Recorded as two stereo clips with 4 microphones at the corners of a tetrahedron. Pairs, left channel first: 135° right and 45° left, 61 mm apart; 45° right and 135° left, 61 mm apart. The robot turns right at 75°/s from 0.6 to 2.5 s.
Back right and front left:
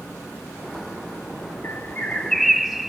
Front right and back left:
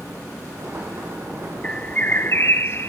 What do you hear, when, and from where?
1.6 s a bird: 110° right, 0.6 m; by 2.9 s 45° right, 0.6 m